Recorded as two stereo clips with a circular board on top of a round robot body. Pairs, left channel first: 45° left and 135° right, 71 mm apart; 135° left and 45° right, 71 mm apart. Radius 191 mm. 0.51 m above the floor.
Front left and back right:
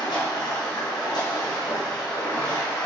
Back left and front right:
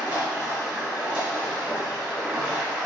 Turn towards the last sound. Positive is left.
turn(degrees=35)